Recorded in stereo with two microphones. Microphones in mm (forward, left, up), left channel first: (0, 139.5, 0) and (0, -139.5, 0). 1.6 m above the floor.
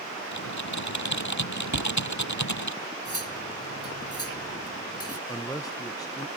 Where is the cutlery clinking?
55° left (ahead or behind).